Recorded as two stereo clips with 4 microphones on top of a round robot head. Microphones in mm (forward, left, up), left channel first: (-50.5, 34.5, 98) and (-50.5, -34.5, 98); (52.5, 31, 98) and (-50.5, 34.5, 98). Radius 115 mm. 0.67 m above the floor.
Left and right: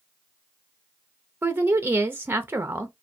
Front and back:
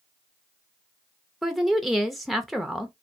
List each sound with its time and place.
1.4 s a woman speaking: 95° right, 0.6 m